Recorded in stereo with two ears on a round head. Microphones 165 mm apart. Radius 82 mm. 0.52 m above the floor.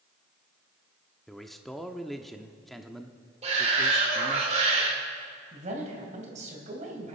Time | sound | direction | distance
1.3 | a man speaking | centre (ahead or behind) | 0.6 m
3.4 | a shout | 35° right (ahead or behind) | 1.9 m
5.5 | a man speaking | 40° right (ahead or behind) | 3 m